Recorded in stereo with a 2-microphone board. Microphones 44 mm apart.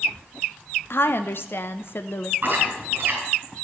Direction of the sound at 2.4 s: 45° right (ahead or behind).